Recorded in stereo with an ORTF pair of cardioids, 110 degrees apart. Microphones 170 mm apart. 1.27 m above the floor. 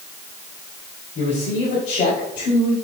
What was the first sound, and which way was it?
A man speaking, 45° left.